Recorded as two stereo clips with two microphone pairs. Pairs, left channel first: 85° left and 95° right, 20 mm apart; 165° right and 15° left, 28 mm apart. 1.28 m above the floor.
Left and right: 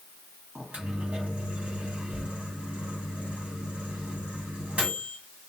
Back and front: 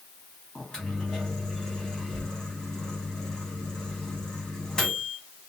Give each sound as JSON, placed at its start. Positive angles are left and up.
{"t": 0.6, "sound": "a microwave", "azimuth_deg": -100, "distance_m": 1.4}